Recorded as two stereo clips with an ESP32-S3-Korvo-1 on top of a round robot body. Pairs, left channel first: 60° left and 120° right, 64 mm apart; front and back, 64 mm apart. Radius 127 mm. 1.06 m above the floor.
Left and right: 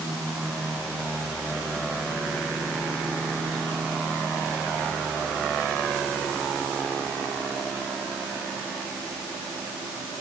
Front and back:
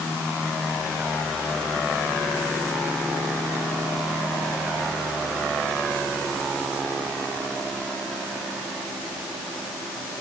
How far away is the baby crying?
I don't hear a baby crying.